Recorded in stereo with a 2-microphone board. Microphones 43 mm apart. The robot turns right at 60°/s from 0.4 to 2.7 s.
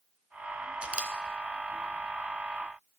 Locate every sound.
0.8 s a camera shutter: 30° right (ahead or behind), 0.7 m; by 1.1 s 25° right (ahead or behind), 0.7 m